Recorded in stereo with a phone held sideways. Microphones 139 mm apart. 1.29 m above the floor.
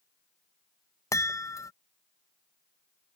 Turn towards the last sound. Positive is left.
turn(degrees=25)  # may be behind; listen again after turning